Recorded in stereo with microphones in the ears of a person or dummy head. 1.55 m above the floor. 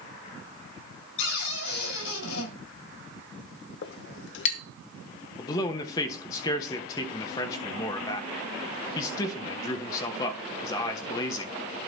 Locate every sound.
1.2 s a cupboard door: 75° left (ahead or behind), 5.5 m
3.8 s a clink: 60° left (ahead or behind), 0.9 m
5.4 s a man speaking: 25° left (ahead or behind), 1.3 m